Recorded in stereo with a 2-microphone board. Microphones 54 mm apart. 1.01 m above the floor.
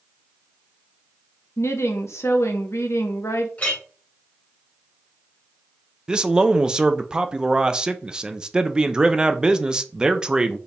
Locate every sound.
1.6 s a woman speaking: 65° left (ahead or behind), 1.0 m
3.6 s a clink: 30° left (ahead or behind), 2 m
6.1 s a man speaking: 15° right (ahead or behind), 0.5 m